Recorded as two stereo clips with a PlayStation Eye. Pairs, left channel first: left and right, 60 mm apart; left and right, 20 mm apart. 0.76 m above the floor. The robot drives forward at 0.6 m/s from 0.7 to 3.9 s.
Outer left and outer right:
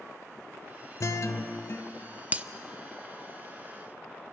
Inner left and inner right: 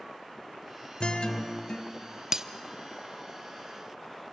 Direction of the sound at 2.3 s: 25° right (ahead or behind).